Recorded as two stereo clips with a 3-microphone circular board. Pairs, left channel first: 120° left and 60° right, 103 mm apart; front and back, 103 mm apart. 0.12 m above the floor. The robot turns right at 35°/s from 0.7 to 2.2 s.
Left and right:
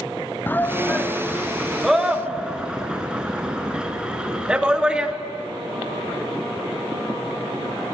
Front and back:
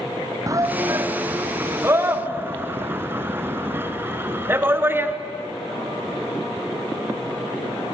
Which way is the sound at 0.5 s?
175° left.